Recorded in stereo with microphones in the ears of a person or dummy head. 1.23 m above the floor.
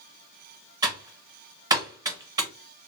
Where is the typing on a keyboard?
20° right (ahead or behind), 0.9 m.